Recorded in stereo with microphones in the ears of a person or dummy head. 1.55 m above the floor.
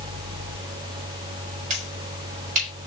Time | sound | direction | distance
1.7 | a finger snap | 45° right (ahead or behind) | 4.5 m